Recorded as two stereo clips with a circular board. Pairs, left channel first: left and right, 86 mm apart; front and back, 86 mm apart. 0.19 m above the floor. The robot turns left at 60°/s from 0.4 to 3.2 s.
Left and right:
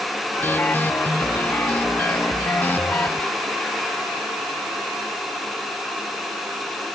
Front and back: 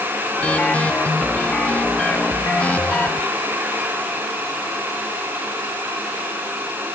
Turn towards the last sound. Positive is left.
No sound to turn to.